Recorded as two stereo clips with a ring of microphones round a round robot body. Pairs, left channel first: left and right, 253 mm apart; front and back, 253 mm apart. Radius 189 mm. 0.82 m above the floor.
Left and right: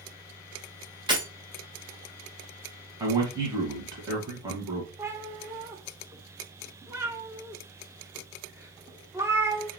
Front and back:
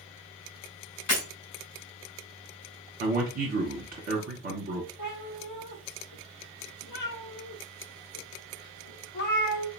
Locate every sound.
1.1 s breaking glass: 15° right, 2 m
3.0 s a man speaking: 155° right, 1.2 m
5.0 s a cat meowing: 10° right, 0.9 m